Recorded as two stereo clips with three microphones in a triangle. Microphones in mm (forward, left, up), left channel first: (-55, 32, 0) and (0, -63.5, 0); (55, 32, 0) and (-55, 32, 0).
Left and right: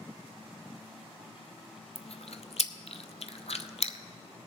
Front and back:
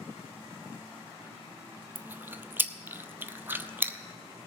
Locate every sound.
1.9 s chewing: 110° left, 0.5 m